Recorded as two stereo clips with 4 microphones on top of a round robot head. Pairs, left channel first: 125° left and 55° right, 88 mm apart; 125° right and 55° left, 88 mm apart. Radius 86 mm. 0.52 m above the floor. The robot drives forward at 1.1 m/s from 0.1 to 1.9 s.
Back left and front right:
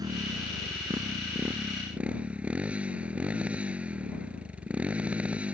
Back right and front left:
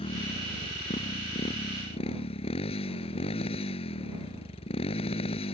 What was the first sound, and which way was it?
A motorcycle, 105° right.